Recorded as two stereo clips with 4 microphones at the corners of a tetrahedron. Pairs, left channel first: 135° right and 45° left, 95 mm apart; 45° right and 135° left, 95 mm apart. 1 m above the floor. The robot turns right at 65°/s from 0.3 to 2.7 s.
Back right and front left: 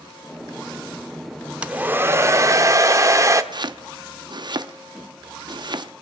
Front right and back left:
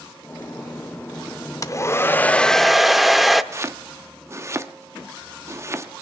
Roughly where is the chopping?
Left.